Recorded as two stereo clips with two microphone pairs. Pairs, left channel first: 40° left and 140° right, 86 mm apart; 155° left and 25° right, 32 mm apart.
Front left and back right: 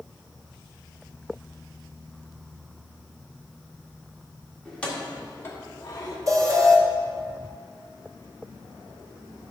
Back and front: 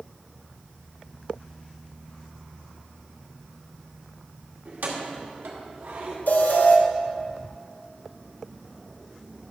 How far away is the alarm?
About 1.3 m.